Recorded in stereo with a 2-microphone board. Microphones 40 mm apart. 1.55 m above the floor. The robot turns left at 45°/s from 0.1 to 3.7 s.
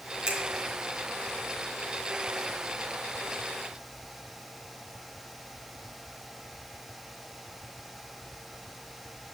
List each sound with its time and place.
0.3 s a finger snap: 30° right (ahead or behind), 1.1 m; by 0.4 s 35° right (ahead or behind), 1.1 m